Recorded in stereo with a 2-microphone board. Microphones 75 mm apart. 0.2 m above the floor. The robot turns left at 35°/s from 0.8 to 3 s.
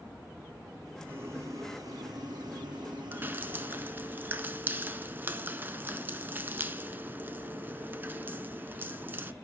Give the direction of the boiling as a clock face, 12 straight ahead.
1 o'clock.